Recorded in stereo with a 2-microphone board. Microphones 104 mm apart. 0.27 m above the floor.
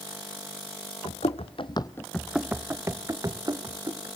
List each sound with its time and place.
1.1 s running footsteps: 80° left, 1.1 m; by 4.1 s 40° right (ahead or behind), 2.5 m